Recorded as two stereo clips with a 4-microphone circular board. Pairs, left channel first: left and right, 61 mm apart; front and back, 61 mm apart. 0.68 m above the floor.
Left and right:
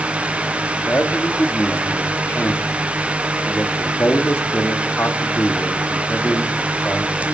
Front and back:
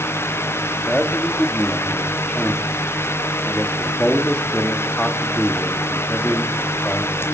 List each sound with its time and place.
0.9 s a man speaking: 65° left, 1.3 m